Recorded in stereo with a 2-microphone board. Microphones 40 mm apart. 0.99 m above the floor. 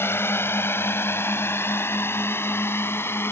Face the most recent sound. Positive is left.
turn(degrees=80)